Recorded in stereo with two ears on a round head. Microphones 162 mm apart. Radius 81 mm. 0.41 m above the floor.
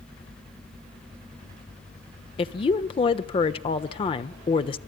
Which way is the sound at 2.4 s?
30° left (ahead or behind).